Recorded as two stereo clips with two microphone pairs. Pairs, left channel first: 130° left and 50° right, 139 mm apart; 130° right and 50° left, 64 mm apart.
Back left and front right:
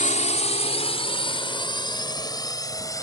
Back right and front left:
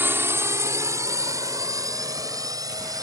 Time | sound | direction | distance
0.0 | a drone | 105° left | ?